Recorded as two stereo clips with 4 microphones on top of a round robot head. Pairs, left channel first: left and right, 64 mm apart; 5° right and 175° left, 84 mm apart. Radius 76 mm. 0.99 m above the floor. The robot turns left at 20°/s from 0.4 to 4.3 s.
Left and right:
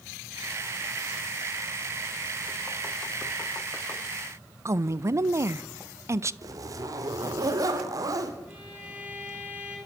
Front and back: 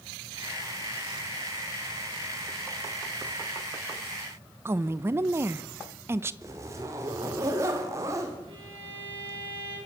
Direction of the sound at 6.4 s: 120° right.